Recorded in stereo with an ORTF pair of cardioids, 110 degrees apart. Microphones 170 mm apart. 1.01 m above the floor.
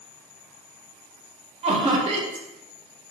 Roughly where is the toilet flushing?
I don't hear a toilet flushing.